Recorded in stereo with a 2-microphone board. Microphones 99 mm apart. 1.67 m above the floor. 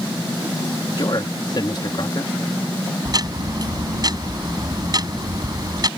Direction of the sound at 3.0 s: 45° right (ahead or behind).